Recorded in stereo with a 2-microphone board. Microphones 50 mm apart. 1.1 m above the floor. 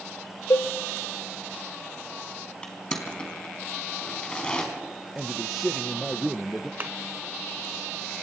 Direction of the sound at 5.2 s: 5° right (ahead or behind).